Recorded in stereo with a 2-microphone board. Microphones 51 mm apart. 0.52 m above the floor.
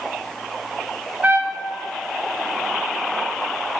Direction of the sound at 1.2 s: 30° right (ahead or behind).